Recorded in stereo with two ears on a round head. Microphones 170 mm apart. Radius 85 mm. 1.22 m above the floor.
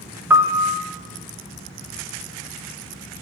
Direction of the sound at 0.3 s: 10° right (ahead or behind).